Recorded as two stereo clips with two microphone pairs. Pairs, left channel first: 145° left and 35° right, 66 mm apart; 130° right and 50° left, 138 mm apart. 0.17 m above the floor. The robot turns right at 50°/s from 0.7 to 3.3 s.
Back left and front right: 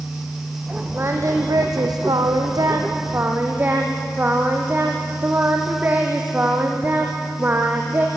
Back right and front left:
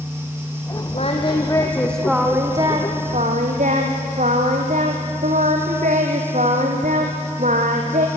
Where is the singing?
90° right, 2.5 m; by 8.1 s 25° left, 2.5 m.